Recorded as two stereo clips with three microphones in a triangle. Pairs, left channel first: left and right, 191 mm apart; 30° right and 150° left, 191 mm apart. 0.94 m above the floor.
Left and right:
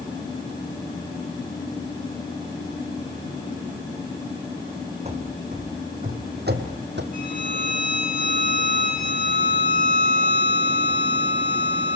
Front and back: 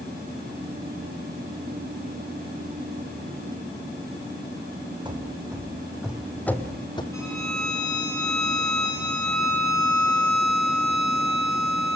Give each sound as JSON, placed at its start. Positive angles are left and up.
{"t": 5.0, "sound": "running footsteps", "azimuth_deg": -145, "distance_m": 2.5}
{"t": 7.1, "sound": "a violin", "azimuth_deg": 45, "distance_m": 6.5}